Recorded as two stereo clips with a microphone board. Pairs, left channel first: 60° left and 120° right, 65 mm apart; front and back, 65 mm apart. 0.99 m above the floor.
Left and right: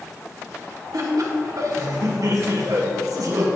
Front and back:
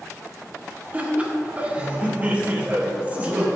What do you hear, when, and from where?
0.9 s laughter: 115° right, 1.6 m